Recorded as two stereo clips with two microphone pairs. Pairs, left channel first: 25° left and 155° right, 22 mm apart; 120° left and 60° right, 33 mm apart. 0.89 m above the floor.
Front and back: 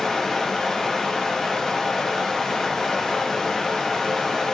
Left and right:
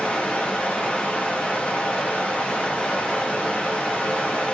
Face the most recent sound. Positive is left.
turn(degrees=80)